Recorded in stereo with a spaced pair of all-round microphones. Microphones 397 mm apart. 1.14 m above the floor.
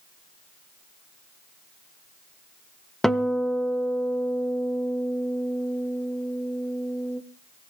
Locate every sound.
3.0 s a guitar: centre (ahead or behind), 0.8 m